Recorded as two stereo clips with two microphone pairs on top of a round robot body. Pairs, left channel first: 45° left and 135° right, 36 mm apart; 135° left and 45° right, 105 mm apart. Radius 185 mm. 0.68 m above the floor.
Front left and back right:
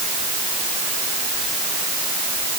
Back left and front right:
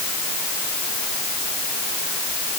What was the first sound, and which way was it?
Only background noise.